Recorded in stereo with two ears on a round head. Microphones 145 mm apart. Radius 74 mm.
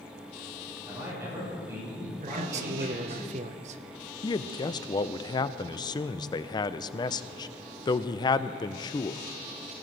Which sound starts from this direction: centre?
A man speaking, at 0.9 s.